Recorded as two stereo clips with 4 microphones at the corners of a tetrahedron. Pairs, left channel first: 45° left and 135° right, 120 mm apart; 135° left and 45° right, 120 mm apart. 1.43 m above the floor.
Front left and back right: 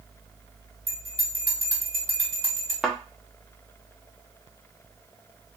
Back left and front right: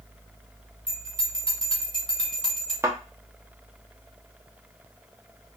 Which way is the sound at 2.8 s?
65° right.